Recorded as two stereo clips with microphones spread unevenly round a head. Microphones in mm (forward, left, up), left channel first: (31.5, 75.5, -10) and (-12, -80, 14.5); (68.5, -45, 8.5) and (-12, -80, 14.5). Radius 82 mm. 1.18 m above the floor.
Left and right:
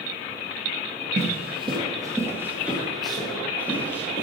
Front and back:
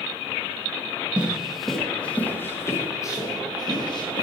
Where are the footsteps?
85° right, 1.7 m; by 4.2 s 5° right, 2.5 m.